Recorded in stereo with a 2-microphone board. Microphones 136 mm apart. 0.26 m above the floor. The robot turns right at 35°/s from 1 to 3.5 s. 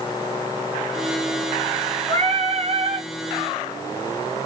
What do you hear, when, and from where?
2.1 s singing: 115° right, 1.8 m; by 3.1 s 80° right, 1.8 m